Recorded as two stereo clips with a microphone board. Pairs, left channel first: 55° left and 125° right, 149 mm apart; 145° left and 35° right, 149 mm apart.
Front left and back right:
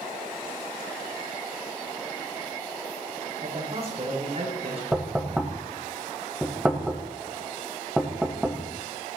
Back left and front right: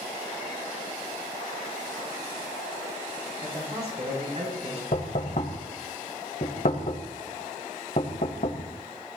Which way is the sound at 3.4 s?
80° right.